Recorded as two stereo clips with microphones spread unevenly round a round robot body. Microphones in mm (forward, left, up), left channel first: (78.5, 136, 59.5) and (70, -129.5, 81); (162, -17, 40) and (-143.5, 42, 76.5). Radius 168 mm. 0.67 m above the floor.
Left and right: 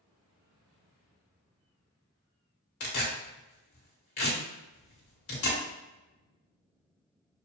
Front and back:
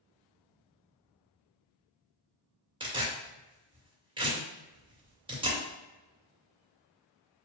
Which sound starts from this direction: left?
Tearing paper, at 2.8 s.